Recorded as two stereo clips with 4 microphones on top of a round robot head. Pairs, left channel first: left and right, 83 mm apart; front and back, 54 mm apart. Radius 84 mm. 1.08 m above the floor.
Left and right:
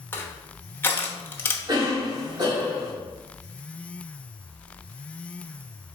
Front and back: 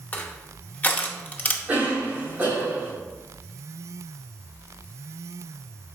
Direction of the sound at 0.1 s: 40° left.